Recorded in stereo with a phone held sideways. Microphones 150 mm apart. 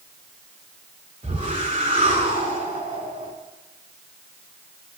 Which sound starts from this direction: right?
A whoosh, at 1.2 s.